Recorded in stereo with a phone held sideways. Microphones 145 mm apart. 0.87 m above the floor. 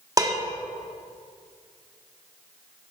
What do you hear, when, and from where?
0.2 s dishes clattering: 25° right (ahead or behind), 1.1 m